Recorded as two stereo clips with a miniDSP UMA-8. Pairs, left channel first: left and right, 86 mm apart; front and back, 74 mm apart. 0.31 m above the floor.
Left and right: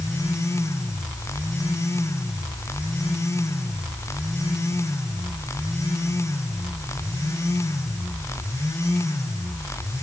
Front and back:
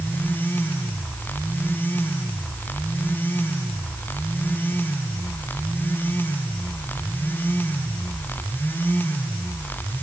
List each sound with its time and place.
Only background noise.